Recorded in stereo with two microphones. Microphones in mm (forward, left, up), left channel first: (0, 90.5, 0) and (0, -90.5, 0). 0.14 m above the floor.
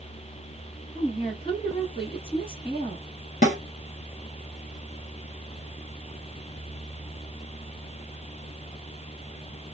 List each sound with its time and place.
0.9 s a woman speaking: 30° left (ahead or behind), 1.5 m
3.4 s a snare drum: 45° left (ahead or behind), 1.5 m